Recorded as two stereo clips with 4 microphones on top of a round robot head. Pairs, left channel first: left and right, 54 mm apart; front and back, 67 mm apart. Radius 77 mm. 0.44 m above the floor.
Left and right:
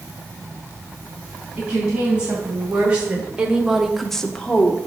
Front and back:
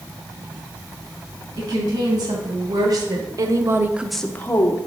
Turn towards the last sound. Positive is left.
turn(degrees=25)